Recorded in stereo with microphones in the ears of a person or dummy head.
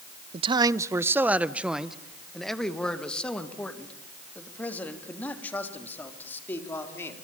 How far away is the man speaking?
About 0.7 m.